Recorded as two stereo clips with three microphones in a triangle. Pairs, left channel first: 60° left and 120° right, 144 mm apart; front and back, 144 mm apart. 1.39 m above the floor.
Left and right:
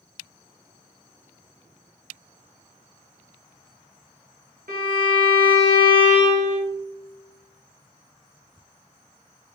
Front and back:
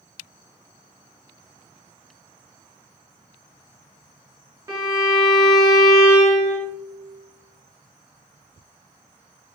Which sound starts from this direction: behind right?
A violin, at 4.7 s.